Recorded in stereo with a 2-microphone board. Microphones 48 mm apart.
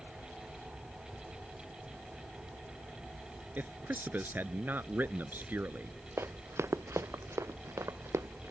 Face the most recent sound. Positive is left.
turn(degrees=-90)